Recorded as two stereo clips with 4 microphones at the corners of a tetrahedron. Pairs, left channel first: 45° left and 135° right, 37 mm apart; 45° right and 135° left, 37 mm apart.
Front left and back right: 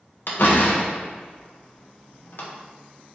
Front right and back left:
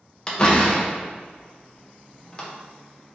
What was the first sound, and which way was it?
A door slam, 20° left.